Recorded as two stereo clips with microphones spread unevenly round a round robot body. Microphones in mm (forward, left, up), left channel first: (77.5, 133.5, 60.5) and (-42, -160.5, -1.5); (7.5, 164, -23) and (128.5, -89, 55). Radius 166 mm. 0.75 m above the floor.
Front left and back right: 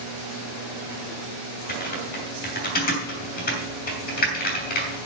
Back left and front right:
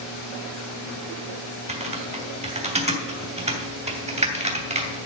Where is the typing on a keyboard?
5° left, 3 m.